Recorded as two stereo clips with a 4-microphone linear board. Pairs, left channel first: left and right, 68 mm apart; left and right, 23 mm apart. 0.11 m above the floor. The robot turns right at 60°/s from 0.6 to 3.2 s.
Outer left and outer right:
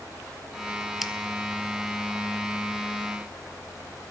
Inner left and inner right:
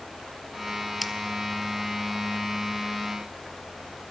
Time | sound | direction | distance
1.0 | scissors | centre (ahead or behind) | 0.6 m